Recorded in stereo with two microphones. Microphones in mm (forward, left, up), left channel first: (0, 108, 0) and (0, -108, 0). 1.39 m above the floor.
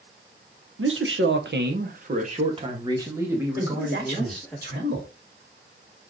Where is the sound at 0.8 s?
75° right (ahead or behind), 1.1 m; by 4.6 s 5° left (ahead or behind), 1.8 m.